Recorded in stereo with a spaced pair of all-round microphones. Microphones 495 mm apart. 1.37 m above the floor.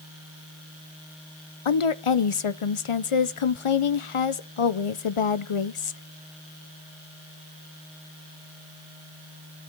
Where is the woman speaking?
80° left, 0.7 m.